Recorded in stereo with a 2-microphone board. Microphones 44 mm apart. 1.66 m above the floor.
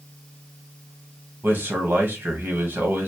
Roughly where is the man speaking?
Right.